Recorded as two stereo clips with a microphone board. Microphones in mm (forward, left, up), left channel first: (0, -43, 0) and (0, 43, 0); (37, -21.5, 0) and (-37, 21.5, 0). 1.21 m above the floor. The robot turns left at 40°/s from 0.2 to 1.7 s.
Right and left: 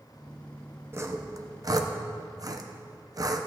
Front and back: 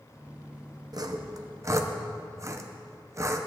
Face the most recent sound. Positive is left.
turn(degrees=105)